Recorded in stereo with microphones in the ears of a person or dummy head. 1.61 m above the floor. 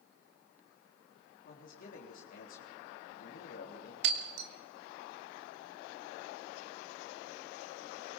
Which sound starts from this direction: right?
Breaking glass, at 4.0 s.